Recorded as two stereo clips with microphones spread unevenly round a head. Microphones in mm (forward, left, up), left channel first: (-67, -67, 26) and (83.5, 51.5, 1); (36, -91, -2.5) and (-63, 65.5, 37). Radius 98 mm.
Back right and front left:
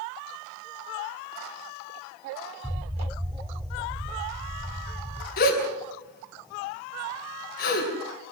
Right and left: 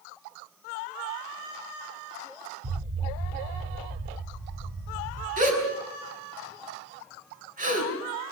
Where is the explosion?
110° left, 1.7 m.